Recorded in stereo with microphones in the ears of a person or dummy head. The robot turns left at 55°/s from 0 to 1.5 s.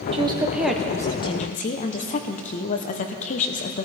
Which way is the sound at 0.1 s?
145° right.